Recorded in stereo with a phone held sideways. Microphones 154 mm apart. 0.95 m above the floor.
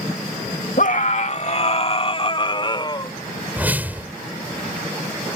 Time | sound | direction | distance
0.8 | a scream | 60° left (ahead or behind) | ?
3.6 | a whoosh | 10° right (ahead or behind) | ?